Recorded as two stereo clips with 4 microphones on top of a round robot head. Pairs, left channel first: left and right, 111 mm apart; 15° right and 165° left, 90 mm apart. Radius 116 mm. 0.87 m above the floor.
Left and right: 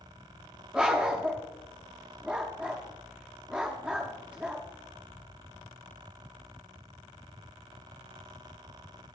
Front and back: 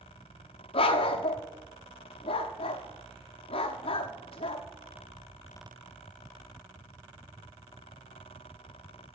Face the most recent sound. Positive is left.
turn(degrees=-5)